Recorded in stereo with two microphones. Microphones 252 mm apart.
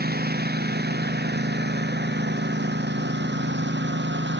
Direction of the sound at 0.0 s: 40° right (ahead or behind).